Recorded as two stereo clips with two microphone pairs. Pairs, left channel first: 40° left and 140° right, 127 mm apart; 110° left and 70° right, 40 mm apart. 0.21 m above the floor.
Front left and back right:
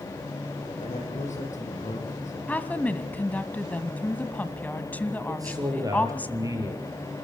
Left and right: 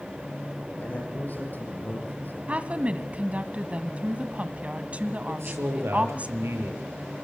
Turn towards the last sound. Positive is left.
turn(degrees=-75)